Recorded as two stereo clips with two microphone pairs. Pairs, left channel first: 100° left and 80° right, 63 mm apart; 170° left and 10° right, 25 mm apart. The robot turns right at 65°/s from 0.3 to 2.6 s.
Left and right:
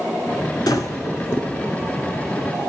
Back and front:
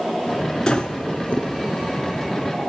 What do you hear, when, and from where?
0.7 s breathing: 105° left, 1.0 m; by 1.5 s 160° left, 1.0 m